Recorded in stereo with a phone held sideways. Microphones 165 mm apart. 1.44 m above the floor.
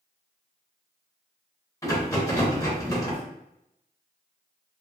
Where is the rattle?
20° left (ahead or behind), 0.8 m.